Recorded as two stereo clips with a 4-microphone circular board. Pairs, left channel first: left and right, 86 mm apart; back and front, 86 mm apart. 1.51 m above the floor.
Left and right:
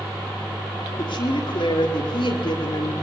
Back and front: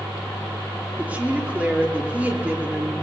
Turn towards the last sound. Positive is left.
turn(degrees=75)